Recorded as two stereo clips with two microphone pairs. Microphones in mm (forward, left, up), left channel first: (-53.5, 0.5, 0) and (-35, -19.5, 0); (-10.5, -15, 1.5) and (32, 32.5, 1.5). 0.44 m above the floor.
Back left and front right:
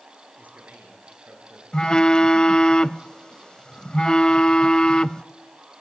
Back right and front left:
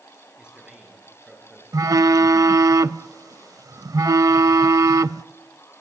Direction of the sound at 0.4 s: 25° right.